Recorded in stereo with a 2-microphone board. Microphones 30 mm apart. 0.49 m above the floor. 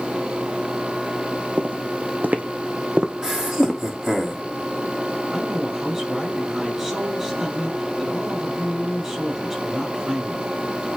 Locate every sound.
1.6 s footsteps: 65° right (ahead or behind), 1.4 m; by 3.8 s 15° right (ahead or behind), 2 m
3.2 s laughter: 20° right (ahead or behind), 3 m
5.3 s a woman speaking: 20° right (ahead or behind), 5 m